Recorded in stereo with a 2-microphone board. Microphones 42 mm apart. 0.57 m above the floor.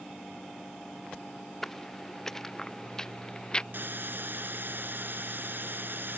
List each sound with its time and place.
1.6 s footsteps: 10° left (ahead or behind); by 3.6 s 20° left (ahead or behind)
3.7 s a hiss: 55° right (ahead or behind)